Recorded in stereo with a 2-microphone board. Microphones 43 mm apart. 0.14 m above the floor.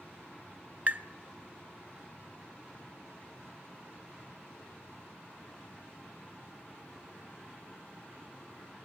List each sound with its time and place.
0.9 s tapping: 45° right (ahead or behind), 0.7 m